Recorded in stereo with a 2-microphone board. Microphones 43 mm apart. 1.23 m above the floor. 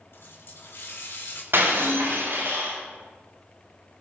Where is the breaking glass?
70° right (ahead or behind), 4.5 m.